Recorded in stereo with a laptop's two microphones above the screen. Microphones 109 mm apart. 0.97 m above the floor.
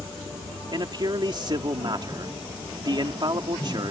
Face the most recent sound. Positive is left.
turn(degrees=-45)  # may be behind; listen again after turning